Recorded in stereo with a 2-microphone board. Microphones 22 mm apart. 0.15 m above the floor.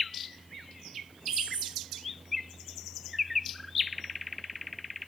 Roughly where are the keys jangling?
Right.